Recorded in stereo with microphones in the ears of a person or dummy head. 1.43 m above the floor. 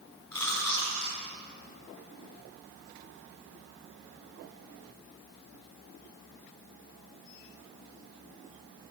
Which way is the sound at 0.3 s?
10° left (ahead or behind).